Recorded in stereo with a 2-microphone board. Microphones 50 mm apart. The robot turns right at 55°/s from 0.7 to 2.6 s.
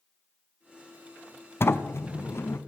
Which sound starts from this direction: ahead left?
A sliding door, at 1.6 s.